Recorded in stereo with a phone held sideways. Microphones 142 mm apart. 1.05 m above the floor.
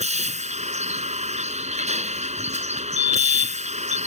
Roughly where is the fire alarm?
Right.